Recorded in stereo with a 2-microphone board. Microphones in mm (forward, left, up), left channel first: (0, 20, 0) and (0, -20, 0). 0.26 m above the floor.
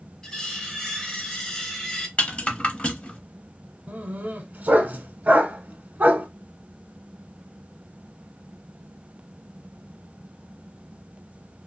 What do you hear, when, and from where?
0.2 s cutlery clinking: 15° left (ahead or behind), 0.6 m
2.2 s a rattle: 30° left (ahead or behind), 0.6 m
3.9 s a dog barking: 45° right (ahead or behind), 0.7 m